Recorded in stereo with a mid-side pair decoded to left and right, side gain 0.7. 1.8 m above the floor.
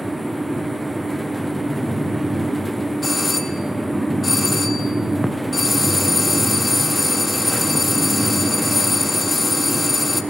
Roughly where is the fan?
Ahead.